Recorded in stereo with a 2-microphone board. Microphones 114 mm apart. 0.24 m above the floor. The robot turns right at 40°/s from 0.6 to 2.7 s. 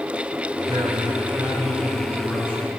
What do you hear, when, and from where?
0.7 s a man speaking: 50° right, 3 m; by 2.7 s 30° left, 3 m